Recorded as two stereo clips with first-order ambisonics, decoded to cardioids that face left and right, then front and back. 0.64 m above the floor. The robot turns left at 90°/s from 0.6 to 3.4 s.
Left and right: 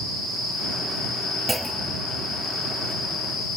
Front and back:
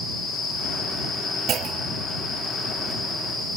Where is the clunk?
170° right; by 2.1 s 140° left.